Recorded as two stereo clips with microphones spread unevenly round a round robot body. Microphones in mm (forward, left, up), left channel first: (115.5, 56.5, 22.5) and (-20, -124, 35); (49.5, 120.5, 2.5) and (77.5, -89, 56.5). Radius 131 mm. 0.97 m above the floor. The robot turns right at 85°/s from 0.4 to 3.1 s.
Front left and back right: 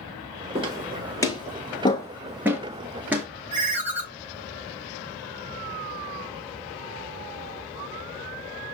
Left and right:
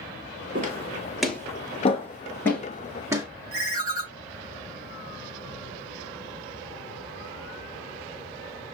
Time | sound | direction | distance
0.6 | footsteps | 80° right | 1.3 m
3.5 | a ringtone | 70° right | 2.0 m